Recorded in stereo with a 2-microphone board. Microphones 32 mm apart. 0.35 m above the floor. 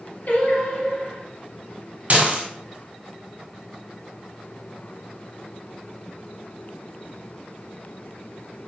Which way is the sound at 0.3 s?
60° left (ahead or behind).